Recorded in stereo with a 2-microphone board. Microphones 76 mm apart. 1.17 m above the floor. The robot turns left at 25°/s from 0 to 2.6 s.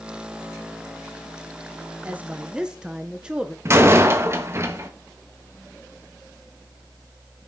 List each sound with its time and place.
2.0 s a woman speaking: 20° right (ahead or behind), 0.8 m; by 3.5 s 10° right (ahead or behind), 0.8 m
3.6 s a door slam: 35° right (ahead or behind), 1.1 m